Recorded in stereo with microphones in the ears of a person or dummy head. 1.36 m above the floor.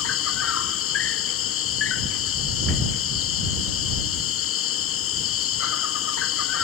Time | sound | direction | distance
0.0 | an insect | 65° left (ahead or behind) | ?